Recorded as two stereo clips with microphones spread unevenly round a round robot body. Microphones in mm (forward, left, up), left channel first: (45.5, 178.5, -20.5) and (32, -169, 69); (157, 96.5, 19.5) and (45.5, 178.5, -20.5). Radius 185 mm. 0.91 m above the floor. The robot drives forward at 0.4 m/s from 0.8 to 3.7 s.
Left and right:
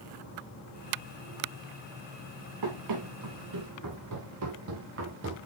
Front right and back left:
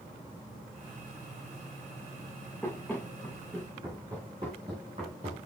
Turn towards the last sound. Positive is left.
turn(degrees=-145)